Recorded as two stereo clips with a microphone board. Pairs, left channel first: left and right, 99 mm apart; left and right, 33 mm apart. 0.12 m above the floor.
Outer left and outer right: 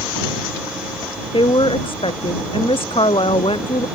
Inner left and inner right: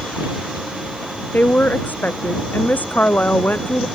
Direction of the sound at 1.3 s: 65° left (ahead or behind).